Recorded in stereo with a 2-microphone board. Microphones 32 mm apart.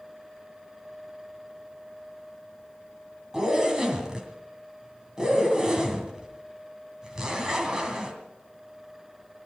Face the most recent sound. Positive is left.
turn(degrees=-20)  # may be behind; listen again after turning